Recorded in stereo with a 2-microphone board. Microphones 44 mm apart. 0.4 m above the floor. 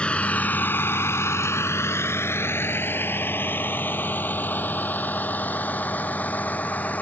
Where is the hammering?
No hammering in this recording.